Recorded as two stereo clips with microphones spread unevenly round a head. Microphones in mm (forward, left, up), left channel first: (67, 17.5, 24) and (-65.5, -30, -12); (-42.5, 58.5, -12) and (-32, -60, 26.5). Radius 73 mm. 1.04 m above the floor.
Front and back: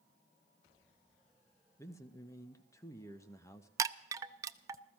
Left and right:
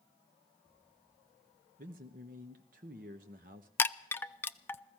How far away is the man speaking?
About 1.1 m.